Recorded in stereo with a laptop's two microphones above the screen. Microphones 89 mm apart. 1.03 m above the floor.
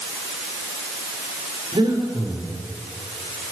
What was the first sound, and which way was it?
Breathing, 70° right (ahead or behind).